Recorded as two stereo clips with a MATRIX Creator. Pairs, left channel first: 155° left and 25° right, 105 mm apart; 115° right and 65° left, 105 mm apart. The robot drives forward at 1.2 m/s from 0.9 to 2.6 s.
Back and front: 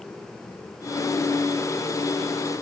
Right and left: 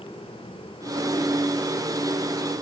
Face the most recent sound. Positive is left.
No sound to turn to.